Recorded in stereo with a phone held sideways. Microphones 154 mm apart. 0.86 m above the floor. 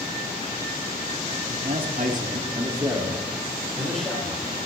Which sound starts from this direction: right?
A man speaking, at 1.5 s.